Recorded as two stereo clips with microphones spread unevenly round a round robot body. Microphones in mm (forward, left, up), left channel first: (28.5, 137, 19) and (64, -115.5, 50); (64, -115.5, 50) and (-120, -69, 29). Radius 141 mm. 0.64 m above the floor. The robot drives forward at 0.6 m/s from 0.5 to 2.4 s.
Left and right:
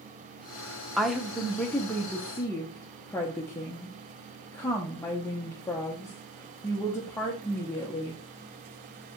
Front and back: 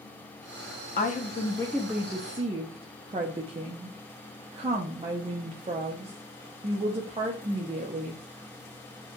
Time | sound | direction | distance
1.0 | a woman speaking | 15° left | 0.8 m